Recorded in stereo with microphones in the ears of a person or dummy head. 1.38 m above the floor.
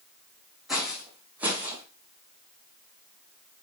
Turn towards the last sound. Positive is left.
turn(degrees=-25)  # may be behind; listen again after turning